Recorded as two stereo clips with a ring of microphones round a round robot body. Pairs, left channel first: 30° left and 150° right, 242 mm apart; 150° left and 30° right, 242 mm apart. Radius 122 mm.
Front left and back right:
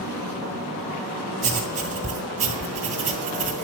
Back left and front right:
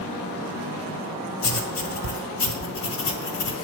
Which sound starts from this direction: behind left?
Writing, at 1.4 s.